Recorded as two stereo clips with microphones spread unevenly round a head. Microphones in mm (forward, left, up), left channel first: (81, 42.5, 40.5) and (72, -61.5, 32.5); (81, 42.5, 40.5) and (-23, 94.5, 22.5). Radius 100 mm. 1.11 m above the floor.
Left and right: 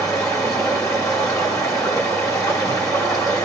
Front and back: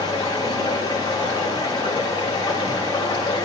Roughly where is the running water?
Ahead left.